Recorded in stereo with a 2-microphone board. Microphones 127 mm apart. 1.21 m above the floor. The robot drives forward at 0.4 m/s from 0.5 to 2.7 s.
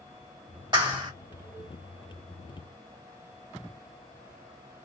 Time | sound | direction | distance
0.7 | a clap | 35° right (ahead or behind) | 1.8 m